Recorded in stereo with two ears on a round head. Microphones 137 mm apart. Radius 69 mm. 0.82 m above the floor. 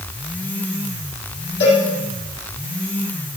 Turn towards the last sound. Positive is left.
turn(degrees=80)